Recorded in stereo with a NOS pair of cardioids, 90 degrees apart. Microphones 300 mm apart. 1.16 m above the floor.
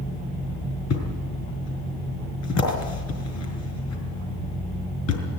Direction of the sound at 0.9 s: 65° left.